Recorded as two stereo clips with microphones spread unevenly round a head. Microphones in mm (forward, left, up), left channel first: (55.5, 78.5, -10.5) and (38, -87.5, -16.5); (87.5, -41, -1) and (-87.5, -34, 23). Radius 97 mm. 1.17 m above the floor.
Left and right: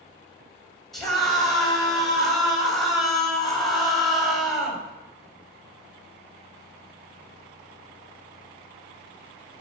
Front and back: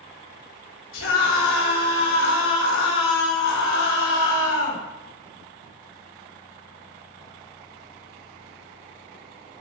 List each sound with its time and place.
0.9 s a scream: 5° right, 6 m